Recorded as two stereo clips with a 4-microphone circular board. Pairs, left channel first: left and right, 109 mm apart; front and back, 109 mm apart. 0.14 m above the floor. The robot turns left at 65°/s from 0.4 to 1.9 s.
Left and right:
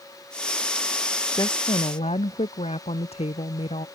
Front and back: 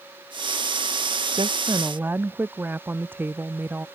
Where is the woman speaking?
145° left; by 3.9 s 105° left.